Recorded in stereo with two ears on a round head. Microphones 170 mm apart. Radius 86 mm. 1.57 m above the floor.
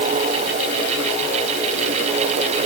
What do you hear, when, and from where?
Only background noise.